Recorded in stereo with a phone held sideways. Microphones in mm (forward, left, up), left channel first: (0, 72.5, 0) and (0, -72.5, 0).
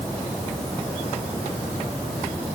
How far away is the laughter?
No laughter in this recording.